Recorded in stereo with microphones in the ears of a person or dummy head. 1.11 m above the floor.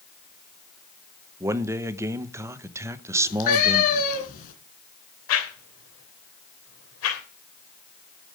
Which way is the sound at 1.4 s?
15° right (ahead or behind).